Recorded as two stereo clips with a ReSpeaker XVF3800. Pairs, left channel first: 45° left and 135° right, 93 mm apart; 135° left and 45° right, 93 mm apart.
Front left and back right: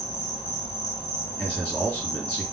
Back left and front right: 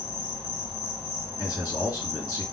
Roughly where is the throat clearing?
I don't hear throat clearing.